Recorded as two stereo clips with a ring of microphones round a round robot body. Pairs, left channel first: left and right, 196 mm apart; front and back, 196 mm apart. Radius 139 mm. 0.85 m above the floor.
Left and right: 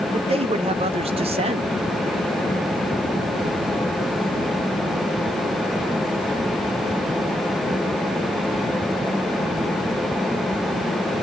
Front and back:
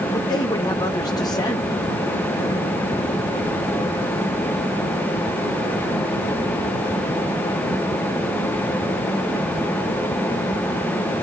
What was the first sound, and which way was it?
A man speaking, 60° right.